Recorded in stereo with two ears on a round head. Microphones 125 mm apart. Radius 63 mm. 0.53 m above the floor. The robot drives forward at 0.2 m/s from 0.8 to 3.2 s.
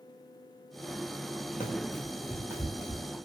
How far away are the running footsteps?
About 0.9 m.